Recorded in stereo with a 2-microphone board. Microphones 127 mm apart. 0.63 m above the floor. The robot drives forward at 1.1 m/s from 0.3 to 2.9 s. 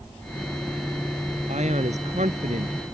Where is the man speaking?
65° right (ahead or behind); by 2.8 s 75° right (ahead or behind).